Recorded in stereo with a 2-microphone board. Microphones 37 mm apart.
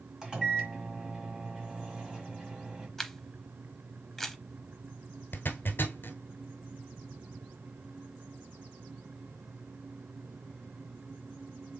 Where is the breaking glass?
I don't hear breaking glass.